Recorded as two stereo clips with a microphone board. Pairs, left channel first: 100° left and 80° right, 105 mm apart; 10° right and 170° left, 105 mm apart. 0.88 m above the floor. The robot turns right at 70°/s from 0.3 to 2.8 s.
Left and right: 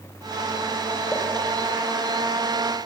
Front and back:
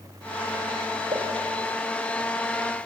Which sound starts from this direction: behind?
A pop, at 1.1 s.